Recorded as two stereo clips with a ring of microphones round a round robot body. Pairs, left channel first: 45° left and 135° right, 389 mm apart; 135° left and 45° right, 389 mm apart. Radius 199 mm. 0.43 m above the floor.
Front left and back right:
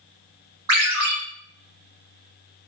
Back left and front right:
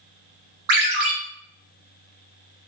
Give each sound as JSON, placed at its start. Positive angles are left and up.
{"t": 0.7, "sound": "a ringtone", "azimuth_deg": -95, "distance_m": 1.5}